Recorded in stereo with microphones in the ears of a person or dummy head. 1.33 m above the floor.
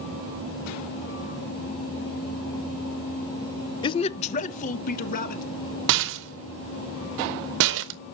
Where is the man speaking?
25° left (ahead or behind), 0.6 m; by 5.4 s 45° left (ahead or behind), 2 m.